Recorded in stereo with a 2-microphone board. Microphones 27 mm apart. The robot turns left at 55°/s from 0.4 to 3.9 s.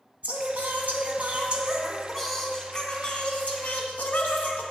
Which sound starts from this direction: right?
Singing, at 0.2 s.